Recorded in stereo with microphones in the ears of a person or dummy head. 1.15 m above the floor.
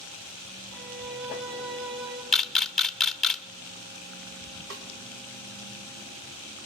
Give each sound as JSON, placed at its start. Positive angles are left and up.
{"t": 0.7, "sound": "a violin", "side_deg": -50, "distance_m": 5.0}
{"t": 2.3, "sound": "a camera shutter", "side_deg": 5, "distance_m": 0.8}
{"t": 4.7, "sound": "a snare drum", "side_deg": -65, "distance_m": 2.5}